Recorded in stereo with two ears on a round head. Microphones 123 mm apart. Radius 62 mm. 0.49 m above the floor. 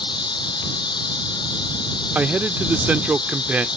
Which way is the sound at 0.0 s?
35° left (ahead or behind).